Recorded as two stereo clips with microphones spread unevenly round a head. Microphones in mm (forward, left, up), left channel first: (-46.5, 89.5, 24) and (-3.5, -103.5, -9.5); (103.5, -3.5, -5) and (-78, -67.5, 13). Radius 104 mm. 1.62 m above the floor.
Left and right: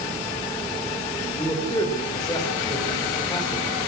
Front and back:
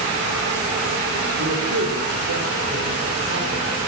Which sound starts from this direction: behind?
A man speaking, at 1.4 s.